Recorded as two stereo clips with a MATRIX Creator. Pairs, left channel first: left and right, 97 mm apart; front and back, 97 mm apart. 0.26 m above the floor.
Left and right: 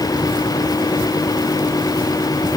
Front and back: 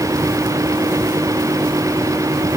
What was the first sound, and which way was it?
Only background noise.